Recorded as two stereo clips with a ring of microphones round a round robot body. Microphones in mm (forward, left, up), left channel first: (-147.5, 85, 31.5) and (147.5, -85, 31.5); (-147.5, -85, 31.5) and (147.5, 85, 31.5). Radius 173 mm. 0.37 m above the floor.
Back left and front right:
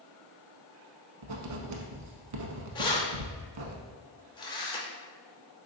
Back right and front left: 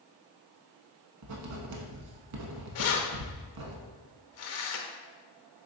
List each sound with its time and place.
1.2 s writing: 10° right, 0.6 m
2.8 s keys jangling: 140° right, 0.6 m